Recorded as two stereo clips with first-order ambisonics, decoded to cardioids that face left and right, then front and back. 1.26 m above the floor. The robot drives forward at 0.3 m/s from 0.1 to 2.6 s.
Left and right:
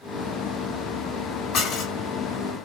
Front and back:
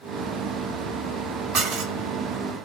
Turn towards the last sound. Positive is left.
turn(degrees=150)